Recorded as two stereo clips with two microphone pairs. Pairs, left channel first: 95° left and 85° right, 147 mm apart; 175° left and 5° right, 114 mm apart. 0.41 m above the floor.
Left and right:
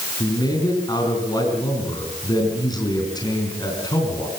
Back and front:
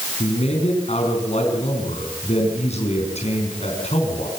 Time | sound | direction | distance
0.2 | a man speaking | 155° left | 5 m